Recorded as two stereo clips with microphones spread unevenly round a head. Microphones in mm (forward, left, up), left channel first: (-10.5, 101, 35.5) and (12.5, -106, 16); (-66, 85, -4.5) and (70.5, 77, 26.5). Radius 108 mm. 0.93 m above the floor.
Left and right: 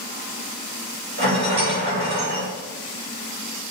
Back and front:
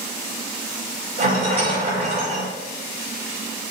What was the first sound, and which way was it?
A rattle, 45° right.